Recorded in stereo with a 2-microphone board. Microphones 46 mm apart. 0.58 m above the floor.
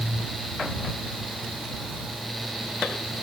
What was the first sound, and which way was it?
Only background noise.